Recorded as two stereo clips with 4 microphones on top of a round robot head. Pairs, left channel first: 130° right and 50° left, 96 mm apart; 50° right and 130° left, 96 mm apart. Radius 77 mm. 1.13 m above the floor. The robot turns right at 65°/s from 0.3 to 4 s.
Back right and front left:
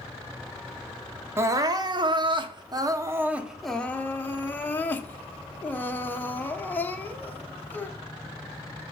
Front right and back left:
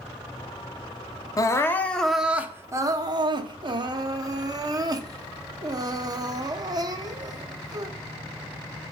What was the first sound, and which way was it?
Crying, 10° right.